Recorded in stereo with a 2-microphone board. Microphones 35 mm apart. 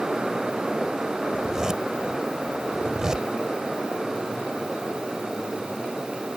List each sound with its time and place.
1.3 s a zipper: 20° right (ahead or behind)